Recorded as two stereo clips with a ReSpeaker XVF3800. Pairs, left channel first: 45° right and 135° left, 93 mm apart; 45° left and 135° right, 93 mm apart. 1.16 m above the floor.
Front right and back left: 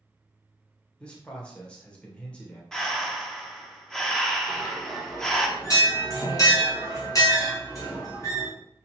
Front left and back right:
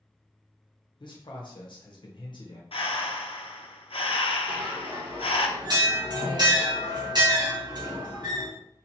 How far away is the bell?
About 1.7 m.